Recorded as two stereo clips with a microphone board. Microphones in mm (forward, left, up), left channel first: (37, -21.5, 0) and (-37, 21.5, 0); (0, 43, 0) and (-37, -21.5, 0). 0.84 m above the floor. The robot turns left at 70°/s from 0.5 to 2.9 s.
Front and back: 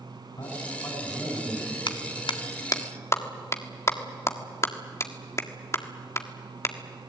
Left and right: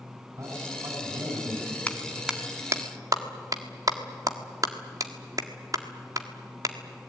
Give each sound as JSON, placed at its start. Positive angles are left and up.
{"t": 0.4, "sound": "a man speaking", "azimuth_deg": -70, "distance_m": 8.5}
{"t": 1.9, "sound": "a clap", "azimuth_deg": -15, "distance_m": 1.6}